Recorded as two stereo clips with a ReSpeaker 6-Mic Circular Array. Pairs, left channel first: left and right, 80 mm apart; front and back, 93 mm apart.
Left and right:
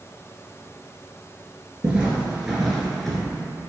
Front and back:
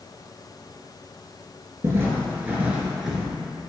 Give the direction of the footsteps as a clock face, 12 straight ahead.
5 o'clock.